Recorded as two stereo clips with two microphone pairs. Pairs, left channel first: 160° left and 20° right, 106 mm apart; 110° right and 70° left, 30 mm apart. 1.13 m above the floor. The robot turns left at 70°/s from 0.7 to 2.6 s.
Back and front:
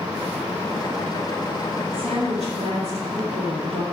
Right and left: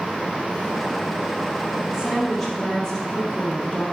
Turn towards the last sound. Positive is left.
turn(degrees=-40)